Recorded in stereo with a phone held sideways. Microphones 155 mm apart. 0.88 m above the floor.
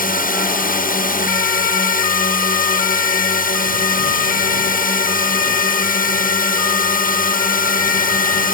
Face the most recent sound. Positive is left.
turn(degrees=65)  # may be behind; listen again after turning